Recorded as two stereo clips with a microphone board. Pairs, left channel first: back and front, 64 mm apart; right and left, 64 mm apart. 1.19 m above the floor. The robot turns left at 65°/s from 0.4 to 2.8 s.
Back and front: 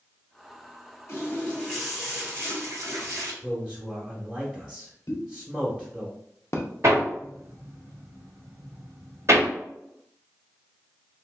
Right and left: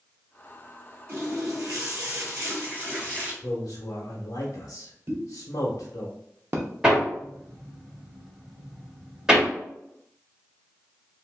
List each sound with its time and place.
1.1 s a running tap: 140° left, 1.6 m; by 3.3 s 30° left, 1.6 m
3.4 s a man speaking: 80° right, 0.8 m
5.1 s a pop: 140° left, 0.6 m
6.8 s hammering: 15° left, 1.2 m